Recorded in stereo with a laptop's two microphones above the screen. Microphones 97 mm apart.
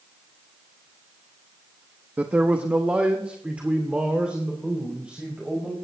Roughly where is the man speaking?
Centre.